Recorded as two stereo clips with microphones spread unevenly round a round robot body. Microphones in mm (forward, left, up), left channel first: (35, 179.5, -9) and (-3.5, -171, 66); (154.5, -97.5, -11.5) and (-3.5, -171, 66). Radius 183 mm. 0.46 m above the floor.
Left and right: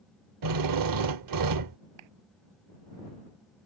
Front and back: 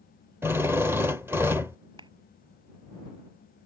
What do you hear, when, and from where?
0.4 s a drill: 65° right
2.0 s a clap: 95° right